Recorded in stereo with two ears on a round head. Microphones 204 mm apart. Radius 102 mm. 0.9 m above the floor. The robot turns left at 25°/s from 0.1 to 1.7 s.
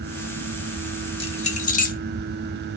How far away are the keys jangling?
About 1.1 m.